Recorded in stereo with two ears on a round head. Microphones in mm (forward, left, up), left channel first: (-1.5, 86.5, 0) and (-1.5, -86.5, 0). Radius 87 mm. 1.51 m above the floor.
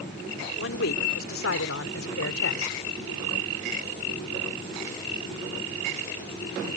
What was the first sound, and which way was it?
A man speaking, 75° left (ahead or behind).